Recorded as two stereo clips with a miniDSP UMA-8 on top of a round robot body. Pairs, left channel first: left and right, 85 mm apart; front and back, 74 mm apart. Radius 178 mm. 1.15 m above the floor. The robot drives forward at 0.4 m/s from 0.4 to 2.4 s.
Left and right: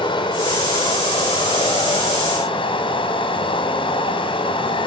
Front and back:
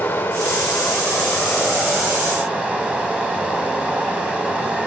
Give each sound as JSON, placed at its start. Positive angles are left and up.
{"t": 0.0, "sound": "running water", "azimuth_deg": 70, "distance_m": 1.4}